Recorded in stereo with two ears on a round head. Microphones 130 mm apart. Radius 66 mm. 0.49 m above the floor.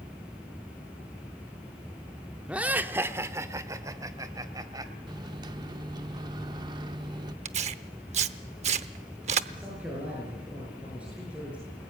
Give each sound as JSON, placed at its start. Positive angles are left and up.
{"t": 2.5, "sound": "laughter", "side_deg": -10, "distance_m": 1.1}
{"t": 5.1, "sound": "a microwave", "side_deg": -30, "distance_m": 0.6}
{"t": 7.5, "sound": "tearing paper", "side_deg": -45, "distance_m": 0.8}
{"t": 9.5, "sound": "a man speaking", "side_deg": -10, "distance_m": 7.0}